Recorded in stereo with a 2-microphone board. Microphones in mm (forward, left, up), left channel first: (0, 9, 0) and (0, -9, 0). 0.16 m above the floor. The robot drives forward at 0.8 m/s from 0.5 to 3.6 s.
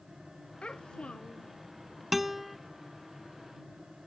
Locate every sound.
0.6 s a child speaking: 70° left (ahead or behind); by 1.5 s 65° left (ahead or behind)
2.1 s a guitar: 10° right (ahead or behind); by 2.6 s 5° right (ahead or behind)